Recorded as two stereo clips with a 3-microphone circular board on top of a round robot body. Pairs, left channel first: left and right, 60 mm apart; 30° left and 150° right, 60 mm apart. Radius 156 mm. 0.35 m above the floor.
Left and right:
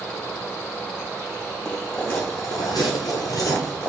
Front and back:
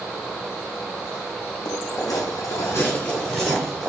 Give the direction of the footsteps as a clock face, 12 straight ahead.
12 o'clock.